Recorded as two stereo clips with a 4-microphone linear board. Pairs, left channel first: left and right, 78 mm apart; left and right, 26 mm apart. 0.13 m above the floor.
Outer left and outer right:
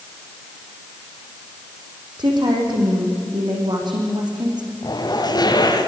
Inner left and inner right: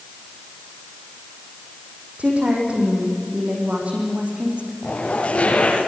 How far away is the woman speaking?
About 8 m.